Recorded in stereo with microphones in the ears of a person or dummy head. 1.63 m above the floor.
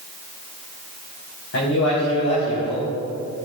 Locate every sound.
1.5 s a man speaking: 65° left (ahead or behind), 3.5 m